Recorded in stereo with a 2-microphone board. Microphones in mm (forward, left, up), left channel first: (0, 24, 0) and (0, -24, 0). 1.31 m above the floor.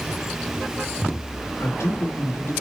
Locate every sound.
1.6 s a man speaking: 70° left (ahead or behind), 1.8 m